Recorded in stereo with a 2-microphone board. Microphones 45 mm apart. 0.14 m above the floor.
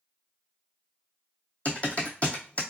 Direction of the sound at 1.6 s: 35° left (ahead or behind).